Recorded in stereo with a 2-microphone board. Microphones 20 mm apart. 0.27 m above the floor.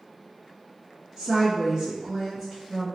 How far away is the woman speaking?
About 1.5 m.